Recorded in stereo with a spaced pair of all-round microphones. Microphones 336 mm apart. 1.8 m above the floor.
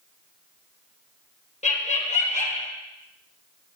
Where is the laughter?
20° left (ahead or behind), 1.3 m.